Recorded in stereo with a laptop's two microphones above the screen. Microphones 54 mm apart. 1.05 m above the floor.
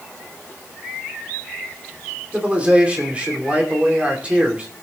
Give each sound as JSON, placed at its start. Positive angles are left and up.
{"t": 2.3, "sound": "a man speaking", "side_deg": -20, "distance_m": 2.5}